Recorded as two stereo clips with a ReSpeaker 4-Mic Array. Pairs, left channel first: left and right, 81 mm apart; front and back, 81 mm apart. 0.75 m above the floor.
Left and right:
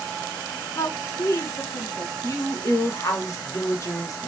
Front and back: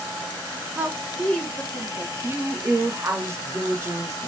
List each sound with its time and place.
0.8 s a woman speaking: 120° left, 1.2 m; by 2.1 s 50° left, 1.5 m
2.2 s a woman speaking: 130° left, 1.3 m